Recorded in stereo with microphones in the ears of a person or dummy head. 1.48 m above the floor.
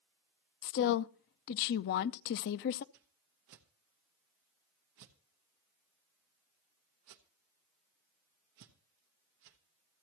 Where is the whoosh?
50° right (ahead or behind), 0.8 m.